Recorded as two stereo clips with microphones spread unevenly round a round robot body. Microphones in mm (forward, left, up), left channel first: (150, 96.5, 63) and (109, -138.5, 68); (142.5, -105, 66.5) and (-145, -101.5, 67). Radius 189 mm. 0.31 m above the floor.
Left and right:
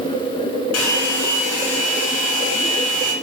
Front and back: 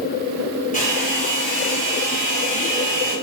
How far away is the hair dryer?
About 0.9 m.